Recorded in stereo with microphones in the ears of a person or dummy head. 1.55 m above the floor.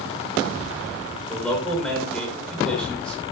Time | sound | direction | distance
1.3 | a man speaking | 10° left (ahead or behind) | 7.5 m